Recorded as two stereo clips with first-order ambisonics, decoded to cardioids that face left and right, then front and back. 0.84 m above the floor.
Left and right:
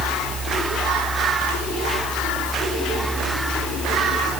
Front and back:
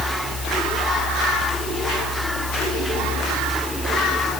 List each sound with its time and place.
Only background noise.